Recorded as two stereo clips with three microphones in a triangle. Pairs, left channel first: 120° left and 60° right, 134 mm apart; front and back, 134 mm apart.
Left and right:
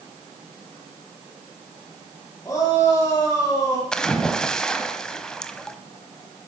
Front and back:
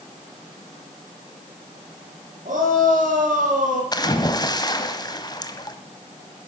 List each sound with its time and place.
2.5 s a shout: 175° right, 6.5 m
3.9 s a splash: 40° left, 1.2 m